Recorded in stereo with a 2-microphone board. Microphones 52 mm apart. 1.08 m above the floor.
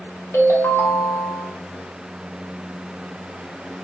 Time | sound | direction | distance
0.3 | a ringtone | 65° left (ahead or behind) | 0.7 m